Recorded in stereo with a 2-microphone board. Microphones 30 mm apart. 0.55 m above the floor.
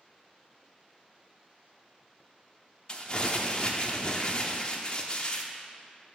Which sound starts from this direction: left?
Crumpling, at 2.9 s.